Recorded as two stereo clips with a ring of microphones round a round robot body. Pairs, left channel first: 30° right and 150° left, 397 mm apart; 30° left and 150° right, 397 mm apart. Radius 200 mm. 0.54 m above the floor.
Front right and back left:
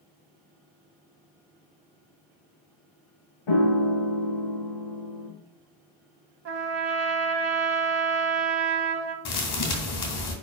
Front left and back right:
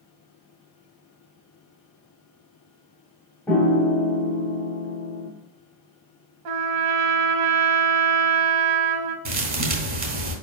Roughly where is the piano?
Ahead right.